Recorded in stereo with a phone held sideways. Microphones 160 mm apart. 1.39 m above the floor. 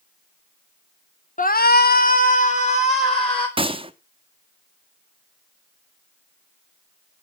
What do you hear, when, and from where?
1.4 s a shout: 55° left (ahead or behind), 1.0 m; by 3.5 s 35° left (ahead or behind), 3 m
3.6 s a gunshot: 35° right (ahead or behind), 1.0 m